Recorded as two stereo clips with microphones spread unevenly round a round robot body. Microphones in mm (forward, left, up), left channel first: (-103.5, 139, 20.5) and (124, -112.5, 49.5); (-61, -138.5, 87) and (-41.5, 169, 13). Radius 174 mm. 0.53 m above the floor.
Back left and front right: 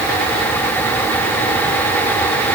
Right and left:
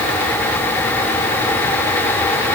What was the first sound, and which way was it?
Only background noise.